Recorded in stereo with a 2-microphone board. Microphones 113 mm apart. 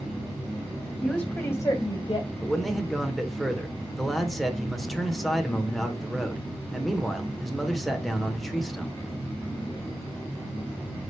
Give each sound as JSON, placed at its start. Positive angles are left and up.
{"t": 1.0, "sound": "a woman speaking", "side_deg": 0, "distance_m": 1.1}
{"t": 2.4, "sound": "a man speaking", "side_deg": 0, "distance_m": 1.0}